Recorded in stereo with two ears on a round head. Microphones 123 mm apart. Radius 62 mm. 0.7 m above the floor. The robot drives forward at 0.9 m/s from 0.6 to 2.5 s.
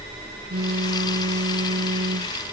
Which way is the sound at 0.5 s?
85° right.